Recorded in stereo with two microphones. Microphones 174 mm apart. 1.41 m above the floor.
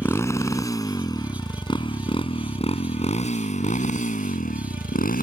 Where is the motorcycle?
15° left (ahead or behind); by 5.2 s 60° left (ahead or behind).